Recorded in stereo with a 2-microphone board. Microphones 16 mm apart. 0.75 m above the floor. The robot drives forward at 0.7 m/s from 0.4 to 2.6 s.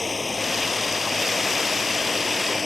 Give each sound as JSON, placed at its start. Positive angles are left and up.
{"t": 0.0, "sound": "running water", "side_deg": 0}